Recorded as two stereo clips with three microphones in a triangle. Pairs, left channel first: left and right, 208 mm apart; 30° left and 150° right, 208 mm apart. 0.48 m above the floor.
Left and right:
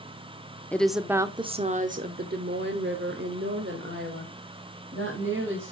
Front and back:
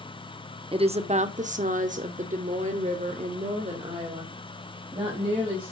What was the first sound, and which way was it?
A woman speaking, 170° left.